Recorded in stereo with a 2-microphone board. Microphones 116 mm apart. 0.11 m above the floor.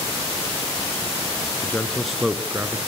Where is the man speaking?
20° left (ahead or behind), 1.2 m; by 2.8 s 30° right (ahead or behind), 1.2 m.